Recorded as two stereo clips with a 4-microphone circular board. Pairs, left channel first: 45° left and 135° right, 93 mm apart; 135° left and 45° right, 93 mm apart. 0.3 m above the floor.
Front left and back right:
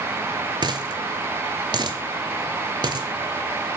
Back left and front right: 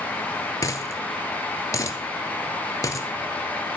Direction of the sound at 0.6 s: 170° right.